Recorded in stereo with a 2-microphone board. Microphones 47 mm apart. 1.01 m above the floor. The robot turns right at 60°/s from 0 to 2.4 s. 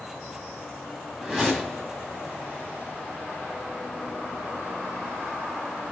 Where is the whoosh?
25° right, 1.0 m; by 1.9 s 15° left, 1.0 m.